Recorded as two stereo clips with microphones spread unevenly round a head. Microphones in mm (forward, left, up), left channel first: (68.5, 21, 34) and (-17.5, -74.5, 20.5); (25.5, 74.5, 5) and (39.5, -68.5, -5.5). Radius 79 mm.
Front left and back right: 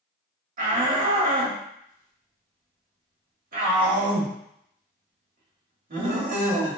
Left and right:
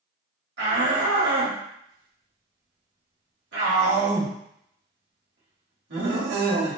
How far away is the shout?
About 1.9 m.